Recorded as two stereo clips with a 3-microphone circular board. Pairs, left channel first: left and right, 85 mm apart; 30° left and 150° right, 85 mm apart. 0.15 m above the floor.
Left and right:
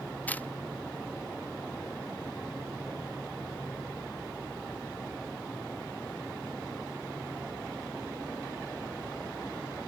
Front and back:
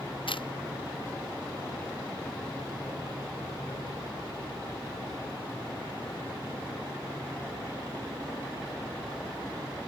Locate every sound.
0.3 s a camera shutter: 20° left